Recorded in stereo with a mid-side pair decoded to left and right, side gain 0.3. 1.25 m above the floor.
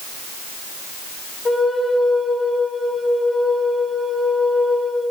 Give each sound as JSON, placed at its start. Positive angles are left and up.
{"t": 1.4, "sound": "a flute", "azimuth_deg": 35, "distance_m": 1.1}